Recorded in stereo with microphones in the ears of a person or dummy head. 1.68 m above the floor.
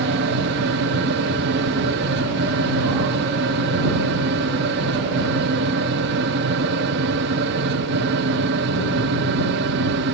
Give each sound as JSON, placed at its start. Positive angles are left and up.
{"t": 0.0, "sound": "a fan", "side_deg": -60}